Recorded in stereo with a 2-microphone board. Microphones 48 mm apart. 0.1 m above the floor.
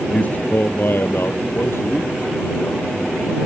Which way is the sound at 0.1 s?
30° left (ahead or behind).